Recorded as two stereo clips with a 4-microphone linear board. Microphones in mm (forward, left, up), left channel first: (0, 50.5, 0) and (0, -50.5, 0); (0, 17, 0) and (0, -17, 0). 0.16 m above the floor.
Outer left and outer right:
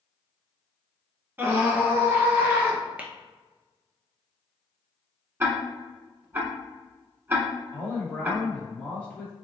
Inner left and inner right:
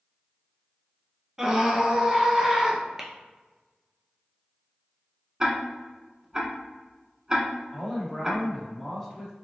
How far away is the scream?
About 1.0 m.